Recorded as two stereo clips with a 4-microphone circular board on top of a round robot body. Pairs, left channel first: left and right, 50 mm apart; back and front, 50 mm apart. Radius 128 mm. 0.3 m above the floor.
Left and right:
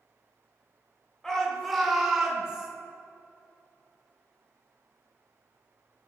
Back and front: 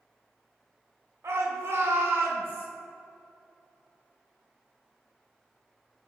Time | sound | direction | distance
1.2 | a shout | 10° left | 2.5 m